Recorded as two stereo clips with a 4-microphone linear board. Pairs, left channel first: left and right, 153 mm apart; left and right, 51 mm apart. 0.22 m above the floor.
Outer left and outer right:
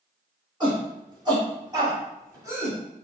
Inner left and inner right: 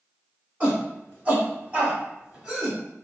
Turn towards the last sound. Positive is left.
turn(degrees=-15)  # may be behind; listen again after turning